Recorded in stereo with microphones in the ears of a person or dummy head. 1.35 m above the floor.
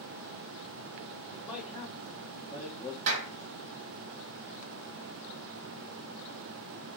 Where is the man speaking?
10° right (ahead or behind), 2 m; by 3.0 s 20° left (ahead or behind), 3 m.